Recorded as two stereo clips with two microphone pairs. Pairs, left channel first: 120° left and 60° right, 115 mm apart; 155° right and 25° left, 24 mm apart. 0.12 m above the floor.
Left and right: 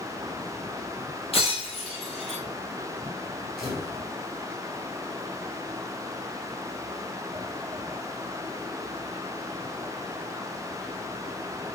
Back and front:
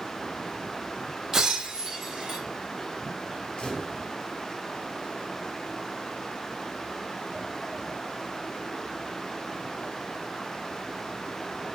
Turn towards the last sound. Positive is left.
turn(degrees=-150)